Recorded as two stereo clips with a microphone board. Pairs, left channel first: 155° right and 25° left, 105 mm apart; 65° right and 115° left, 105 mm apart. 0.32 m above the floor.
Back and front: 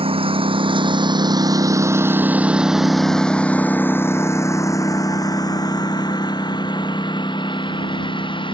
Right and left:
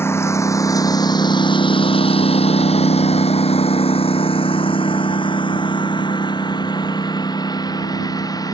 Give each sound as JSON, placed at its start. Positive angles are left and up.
{"t": 0.0, "sound": "a lawn mower", "azimuth_deg": 0}